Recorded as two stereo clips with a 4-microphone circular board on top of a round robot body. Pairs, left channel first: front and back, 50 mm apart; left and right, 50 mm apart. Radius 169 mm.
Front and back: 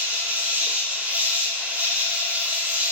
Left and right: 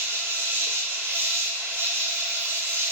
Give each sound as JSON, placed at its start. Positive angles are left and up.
{"t": 0.0, "sound": "an insect", "azimuth_deg": -125, "distance_m": 0.8}